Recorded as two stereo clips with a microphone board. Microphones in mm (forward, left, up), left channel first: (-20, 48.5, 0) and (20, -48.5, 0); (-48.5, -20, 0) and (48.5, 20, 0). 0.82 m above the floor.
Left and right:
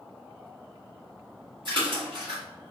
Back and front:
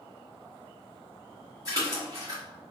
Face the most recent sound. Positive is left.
turn(degrees=-30)